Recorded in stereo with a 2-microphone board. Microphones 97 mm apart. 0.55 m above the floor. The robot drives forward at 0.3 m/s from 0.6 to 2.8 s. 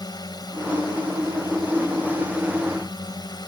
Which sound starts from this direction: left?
A drone, at 0.0 s.